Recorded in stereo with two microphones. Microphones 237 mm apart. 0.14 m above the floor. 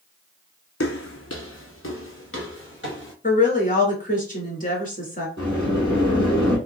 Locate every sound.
0.8 s footsteps: 80° left, 0.5 m; by 3.1 s 55° left (ahead or behind), 1.9 m
3.2 s a woman speaking: 40° left (ahead or behind), 1.6 m
5.4 s a sliding door: 50° left (ahead or behind), 2 m